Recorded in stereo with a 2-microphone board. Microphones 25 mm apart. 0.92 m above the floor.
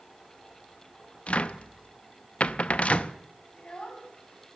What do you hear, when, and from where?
1.3 s a cupboard door: 55° left (ahead or behind), 0.5 m
3.5 s a child speaking: 45° left (ahead or behind), 3.5 m